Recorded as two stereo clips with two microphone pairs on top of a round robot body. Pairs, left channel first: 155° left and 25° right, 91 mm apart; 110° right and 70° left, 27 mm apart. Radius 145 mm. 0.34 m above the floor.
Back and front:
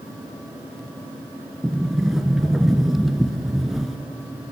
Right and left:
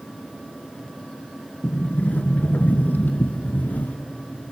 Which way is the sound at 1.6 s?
115° right.